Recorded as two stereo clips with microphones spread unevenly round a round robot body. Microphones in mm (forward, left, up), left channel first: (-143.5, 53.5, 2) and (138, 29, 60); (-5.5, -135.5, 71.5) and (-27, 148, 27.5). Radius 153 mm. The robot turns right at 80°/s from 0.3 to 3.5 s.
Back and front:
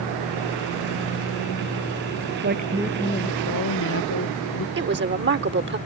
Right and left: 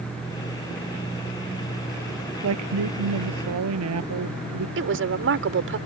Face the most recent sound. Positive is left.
turn(degrees=50)